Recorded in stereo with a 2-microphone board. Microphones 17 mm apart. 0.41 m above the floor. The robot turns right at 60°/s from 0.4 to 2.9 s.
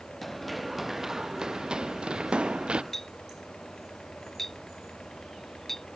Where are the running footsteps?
Centre (ahead or behind); by 2.8 s 75° right (ahead or behind).